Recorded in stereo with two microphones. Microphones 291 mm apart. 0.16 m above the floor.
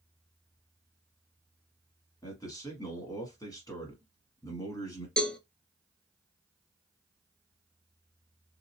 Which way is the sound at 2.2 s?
15° left (ahead or behind).